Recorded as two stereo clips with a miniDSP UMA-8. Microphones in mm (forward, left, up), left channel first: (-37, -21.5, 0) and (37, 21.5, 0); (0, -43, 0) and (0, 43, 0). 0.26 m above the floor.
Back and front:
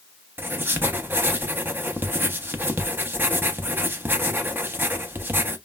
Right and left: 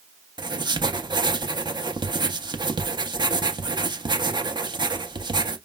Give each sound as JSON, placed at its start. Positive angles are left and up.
{"t": 0.4, "sound": "writing", "azimuth_deg": 90, "distance_m": 0.5}